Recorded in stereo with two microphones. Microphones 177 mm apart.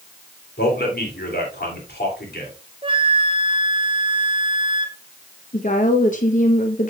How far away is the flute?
About 0.7 m.